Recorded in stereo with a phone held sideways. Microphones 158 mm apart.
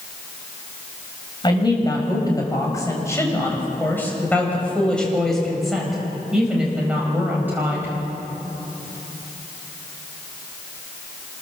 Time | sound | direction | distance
1.4 | a woman speaking | 30° left (ahead or behind) | 6 m